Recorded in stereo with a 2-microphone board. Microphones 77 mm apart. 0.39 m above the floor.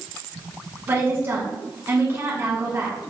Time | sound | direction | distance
0.9 | a woman speaking | 35° right (ahead or behind) | 1.5 m